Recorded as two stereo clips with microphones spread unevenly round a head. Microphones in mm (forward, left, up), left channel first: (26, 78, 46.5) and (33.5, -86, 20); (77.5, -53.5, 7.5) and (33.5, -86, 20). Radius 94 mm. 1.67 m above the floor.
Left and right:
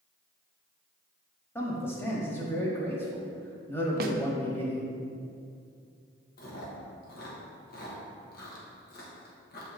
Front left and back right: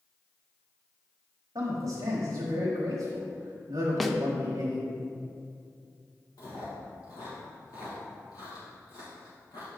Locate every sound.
1.6 s a man speaking: 170° left, 1.0 m
4.0 s a snare drum: 50° right, 0.6 m
6.4 s chewing: 80° left, 1.1 m